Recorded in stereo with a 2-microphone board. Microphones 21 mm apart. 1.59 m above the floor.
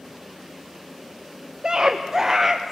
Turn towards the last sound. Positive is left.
turn(degrees=-5)  # may be behind; listen again after turning